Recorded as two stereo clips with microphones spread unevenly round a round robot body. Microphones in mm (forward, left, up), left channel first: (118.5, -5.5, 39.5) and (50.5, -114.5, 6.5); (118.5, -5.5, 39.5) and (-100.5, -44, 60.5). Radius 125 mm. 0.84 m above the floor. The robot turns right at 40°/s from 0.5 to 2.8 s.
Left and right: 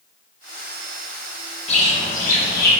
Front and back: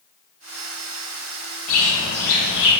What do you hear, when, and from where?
1.7 s a bird: 10° left, 1.6 m; by 2.7 s 50° left, 1.6 m